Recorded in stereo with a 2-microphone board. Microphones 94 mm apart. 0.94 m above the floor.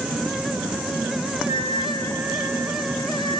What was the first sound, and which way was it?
A flute, 75° right (ahead or behind).